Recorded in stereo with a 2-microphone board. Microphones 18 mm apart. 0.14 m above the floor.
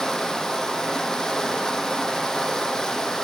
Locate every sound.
0.0 s running water: 40° left (ahead or behind), 0.9 m